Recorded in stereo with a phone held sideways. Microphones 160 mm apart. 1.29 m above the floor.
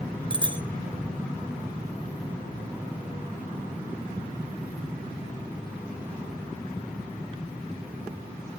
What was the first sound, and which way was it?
A bicycle bell, 35° right (ahead or behind).